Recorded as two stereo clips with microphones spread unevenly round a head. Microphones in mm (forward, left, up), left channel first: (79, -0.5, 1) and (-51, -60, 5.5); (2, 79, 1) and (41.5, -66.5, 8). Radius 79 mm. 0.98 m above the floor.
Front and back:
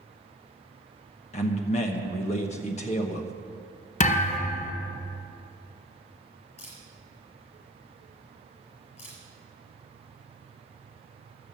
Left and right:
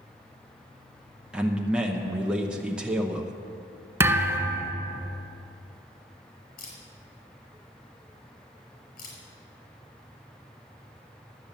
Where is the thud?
5° right, 1.6 m.